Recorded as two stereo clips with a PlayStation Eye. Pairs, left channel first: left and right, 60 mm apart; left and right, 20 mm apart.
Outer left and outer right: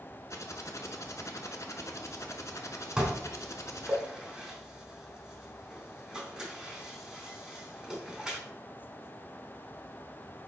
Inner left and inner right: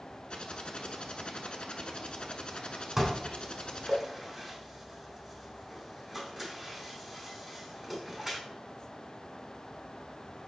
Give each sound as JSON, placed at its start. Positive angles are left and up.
{"t": 0.3, "sound": "typing on a keyboard", "side_deg": 55, "distance_m": 0.7}
{"t": 3.0, "sound": "dishes clattering", "side_deg": -10, "distance_m": 1.0}